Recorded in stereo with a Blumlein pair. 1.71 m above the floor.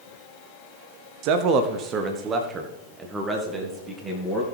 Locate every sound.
1.2 s a man speaking: 45° right, 0.7 m; by 4.4 s 15° right, 2.5 m